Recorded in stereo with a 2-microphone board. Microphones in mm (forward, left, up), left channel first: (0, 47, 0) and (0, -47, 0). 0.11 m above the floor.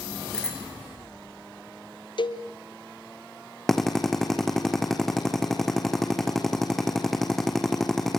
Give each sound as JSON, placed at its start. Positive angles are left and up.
{"t": 0.3, "sound": "a bicycle bell", "side_deg": 10, "distance_m": 7.0}
{"t": 2.2, "sound": "a cowbell", "side_deg": 60, "distance_m": 2.5}
{"t": 3.7, "sound": "a drill", "side_deg": 5, "distance_m": 3.5}